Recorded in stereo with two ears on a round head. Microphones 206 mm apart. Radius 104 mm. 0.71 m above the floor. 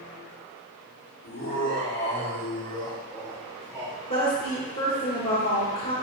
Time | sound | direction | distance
1.2 | laughter | 65° left (ahead or behind) | 2.5 m
4.1 | a woman speaking | 40° left (ahead or behind) | 1.5 m